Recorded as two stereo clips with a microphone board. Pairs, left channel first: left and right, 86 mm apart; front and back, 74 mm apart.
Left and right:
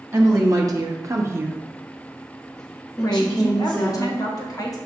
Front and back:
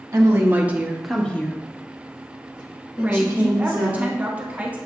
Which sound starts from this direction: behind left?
A woman speaking, at 3.0 s.